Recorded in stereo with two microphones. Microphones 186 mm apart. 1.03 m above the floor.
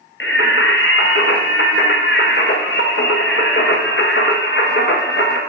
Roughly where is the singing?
Left.